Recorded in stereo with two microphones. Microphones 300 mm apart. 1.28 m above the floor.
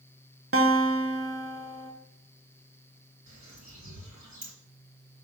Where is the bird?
65° right (ahead or behind), 4 m.